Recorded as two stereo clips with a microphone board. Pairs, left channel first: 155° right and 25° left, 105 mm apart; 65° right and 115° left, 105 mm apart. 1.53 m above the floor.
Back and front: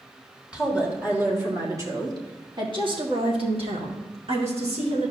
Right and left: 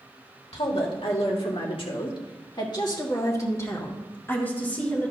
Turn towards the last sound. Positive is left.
turn(degrees=10)